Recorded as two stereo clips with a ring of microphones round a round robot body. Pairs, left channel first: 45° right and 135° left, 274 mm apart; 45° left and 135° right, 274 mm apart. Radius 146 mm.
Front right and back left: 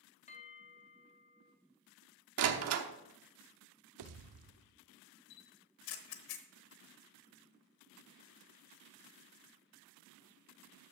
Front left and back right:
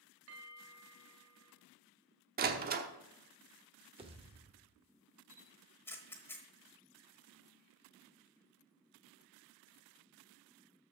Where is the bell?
105° right, 1.5 m.